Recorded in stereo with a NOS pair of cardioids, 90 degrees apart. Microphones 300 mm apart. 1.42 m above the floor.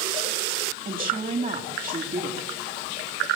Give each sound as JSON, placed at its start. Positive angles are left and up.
{"t": 0.8, "sound": "a woman speaking", "azimuth_deg": -30, "distance_m": 3.5}